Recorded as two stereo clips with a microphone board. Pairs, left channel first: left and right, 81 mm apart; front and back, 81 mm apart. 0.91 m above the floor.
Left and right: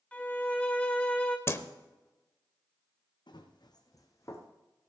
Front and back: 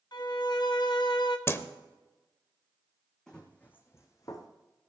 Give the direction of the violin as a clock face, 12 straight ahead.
11 o'clock.